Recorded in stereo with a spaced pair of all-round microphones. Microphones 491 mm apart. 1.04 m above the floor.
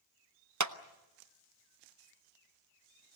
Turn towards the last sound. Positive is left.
turn(degrees=-35)  # may be behind; listen again after turning